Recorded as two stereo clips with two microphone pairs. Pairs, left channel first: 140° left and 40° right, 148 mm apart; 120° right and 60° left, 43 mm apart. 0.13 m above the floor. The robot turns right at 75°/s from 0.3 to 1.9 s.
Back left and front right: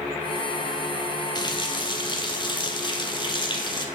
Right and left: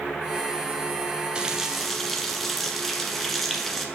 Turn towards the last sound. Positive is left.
turn(degrees=155)